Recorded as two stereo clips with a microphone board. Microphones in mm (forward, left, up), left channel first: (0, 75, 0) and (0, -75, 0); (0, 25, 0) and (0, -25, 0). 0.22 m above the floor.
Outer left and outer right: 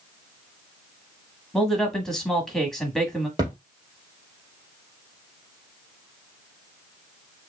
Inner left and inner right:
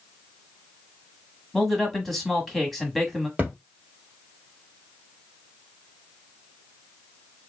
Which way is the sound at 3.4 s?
25° right (ahead or behind).